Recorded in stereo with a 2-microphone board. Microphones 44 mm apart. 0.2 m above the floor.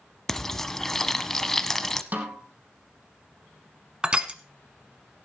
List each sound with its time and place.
0.3 s frying: 10° left (ahead or behind), 0.9 m
2.1 s a snare drum: 40° right (ahead or behind), 3 m
4.0 s crushing: 25° right (ahead or behind), 1.2 m